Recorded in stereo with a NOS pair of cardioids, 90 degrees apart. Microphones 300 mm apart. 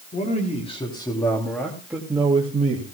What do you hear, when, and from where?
0.1 s a man speaking: 25° left, 4.5 m; by 2.9 s 30° right, 3 m